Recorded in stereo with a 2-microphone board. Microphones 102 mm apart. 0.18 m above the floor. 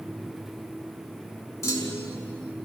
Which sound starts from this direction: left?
A clunk, at 1.6 s.